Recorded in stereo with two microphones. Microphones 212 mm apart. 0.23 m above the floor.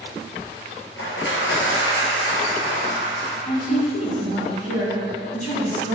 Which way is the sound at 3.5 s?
35° left (ahead or behind).